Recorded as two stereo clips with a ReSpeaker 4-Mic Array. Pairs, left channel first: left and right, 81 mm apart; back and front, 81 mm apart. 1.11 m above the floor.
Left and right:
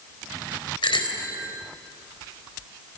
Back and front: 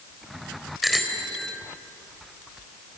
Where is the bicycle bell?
90° left, 3.5 m.